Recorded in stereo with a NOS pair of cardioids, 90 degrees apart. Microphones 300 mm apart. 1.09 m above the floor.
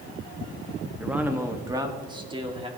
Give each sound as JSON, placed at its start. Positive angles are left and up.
{"t": 1.0, "sound": "a man speaking", "azimuth_deg": -5, "distance_m": 1.3}